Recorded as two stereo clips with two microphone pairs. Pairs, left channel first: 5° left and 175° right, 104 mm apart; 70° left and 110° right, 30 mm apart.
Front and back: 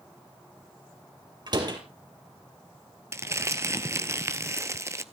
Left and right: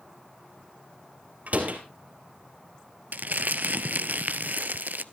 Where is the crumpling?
120° right, 0.5 m.